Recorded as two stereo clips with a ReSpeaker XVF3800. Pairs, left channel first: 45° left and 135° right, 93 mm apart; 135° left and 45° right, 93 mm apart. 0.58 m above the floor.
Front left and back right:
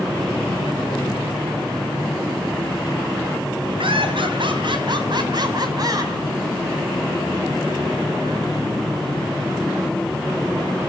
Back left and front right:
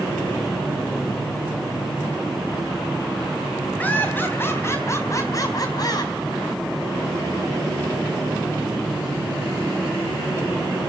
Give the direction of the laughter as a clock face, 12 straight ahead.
5 o'clock.